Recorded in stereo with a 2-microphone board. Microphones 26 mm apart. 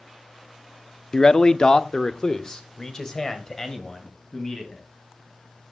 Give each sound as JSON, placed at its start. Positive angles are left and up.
{"t": 1.1, "sound": "a man speaking", "side_deg": 25, "distance_m": 0.6}